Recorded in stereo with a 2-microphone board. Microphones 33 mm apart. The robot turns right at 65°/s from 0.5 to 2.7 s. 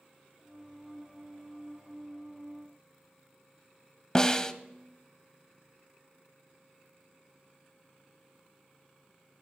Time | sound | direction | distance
4.2 | a snare drum | 20° left (ahead or behind) | 0.6 m